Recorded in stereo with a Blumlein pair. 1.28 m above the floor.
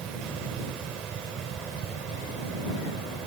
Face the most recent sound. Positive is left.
turn(degrees=-25)